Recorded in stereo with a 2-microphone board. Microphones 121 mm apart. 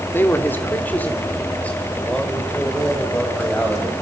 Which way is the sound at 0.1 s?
20° left (ahead or behind).